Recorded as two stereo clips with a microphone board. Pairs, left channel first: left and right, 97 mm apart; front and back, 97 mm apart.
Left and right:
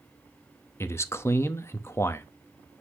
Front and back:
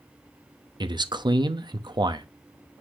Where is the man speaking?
150° left, 0.8 m.